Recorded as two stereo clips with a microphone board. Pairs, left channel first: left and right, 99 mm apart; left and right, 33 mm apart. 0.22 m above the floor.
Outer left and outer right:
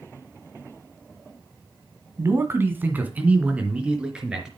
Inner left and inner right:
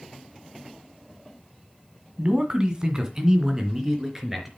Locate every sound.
2.2 s a man speaking: 30° right (ahead or behind), 1.8 m; by 4.5 s 5° right (ahead or behind), 4 m